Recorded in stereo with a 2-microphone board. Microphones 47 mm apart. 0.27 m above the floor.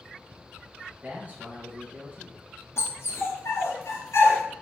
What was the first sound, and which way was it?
A man speaking, 35° right (ahead or behind).